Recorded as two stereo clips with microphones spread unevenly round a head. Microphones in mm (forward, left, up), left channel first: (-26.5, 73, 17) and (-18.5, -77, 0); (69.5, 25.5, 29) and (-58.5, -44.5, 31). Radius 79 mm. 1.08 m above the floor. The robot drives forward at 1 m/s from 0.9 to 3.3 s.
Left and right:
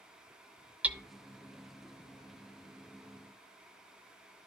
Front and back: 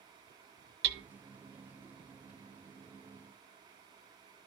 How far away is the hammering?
About 0.9 m.